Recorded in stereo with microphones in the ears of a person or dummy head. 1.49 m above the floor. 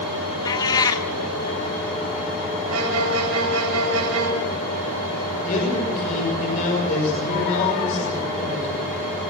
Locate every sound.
0.5 s a cat meowing: 25° left (ahead or behind), 1.6 m
2.7 s a violin: 90° right, 8.5 m
5.4 s a man speaking: 40° left (ahead or behind), 7 m